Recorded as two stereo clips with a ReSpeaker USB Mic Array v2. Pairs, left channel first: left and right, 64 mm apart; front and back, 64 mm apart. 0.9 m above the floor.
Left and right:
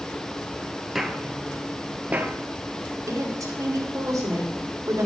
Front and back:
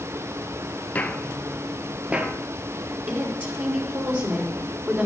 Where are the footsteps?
5° right, 0.9 m; by 2.3 s 130° right, 1.1 m.